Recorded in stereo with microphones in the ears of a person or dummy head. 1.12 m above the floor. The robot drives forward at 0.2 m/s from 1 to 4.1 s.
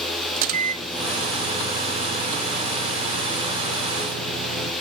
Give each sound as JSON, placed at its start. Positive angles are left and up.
{"t": 0.4, "sound": "a microwave", "side_deg": -45, "distance_m": 1.5}